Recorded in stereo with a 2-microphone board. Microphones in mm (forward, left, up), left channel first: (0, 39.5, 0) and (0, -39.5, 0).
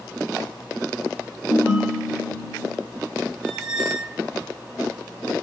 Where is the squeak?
Centre (ahead or behind), 1.1 m.